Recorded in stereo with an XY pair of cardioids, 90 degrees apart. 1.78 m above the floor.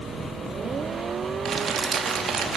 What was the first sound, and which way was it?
Crumpling, 60° right.